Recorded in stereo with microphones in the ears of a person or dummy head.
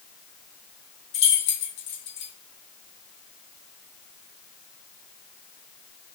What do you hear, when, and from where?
1.1 s keys jangling: 65° left (ahead or behind), 1.2 m